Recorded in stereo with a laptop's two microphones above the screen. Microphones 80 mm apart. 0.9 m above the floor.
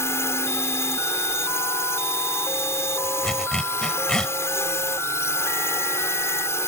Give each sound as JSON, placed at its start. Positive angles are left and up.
{"t": 0.0, "sound": "a drone", "side_deg": 35}
{"t": 3.2, "sound": "a zipper", "side_deg": 10}